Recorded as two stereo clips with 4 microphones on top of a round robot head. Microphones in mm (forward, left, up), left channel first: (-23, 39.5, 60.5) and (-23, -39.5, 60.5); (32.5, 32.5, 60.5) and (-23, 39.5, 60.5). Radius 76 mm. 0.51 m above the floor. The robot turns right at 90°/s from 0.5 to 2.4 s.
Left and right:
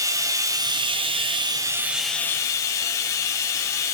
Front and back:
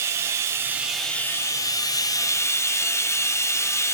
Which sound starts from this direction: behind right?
Running water, at 0.0 s.